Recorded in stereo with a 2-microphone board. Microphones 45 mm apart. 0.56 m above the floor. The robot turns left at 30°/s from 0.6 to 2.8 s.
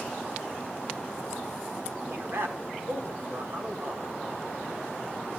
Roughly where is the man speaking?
Right.